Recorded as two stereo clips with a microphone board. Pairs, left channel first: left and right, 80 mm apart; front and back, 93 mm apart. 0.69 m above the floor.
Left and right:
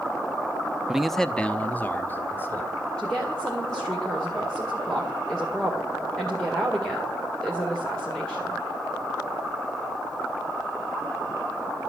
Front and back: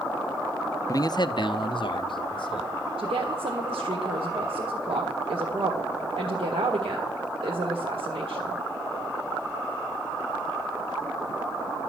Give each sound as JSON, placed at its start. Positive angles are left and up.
{"t": 0.9, "sound": "a man speaking", "azimuth_deg": -15, "distance_m": 0.6}
{"t": 3.0, "sound": "a woman speaking", "azimuth_deg": 170, "distance_m": 1.9}